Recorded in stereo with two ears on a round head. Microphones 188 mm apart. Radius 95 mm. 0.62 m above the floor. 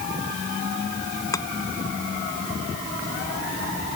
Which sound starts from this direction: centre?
Chopping, at 1.3 s.